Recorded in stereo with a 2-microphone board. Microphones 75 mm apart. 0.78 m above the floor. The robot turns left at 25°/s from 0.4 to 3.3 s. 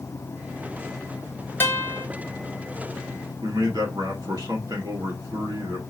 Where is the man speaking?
65° right (ahead or behind), 1.9 m.